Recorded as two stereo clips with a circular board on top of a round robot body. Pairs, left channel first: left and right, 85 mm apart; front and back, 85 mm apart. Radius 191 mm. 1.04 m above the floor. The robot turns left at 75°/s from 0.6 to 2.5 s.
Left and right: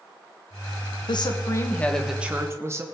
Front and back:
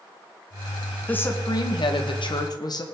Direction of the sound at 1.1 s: 75° left.